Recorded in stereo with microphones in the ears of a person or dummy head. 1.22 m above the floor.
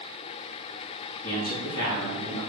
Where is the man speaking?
80° left, 2.5 m; by 2.4 s 70° left (ahead or behind), 2.5 m.